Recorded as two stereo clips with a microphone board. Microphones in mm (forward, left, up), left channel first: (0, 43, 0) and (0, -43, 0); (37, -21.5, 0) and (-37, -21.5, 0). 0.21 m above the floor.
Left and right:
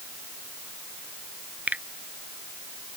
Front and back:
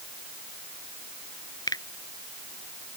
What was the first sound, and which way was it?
A finger snap, 20° right.